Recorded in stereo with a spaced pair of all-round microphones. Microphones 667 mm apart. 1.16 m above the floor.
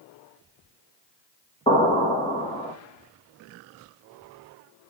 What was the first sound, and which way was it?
An explosion, 10° left (ahead or behind).